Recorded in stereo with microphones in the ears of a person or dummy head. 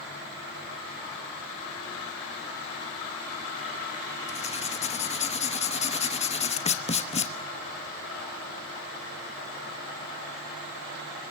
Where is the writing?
30° left (ahead or behind), 0.9 m.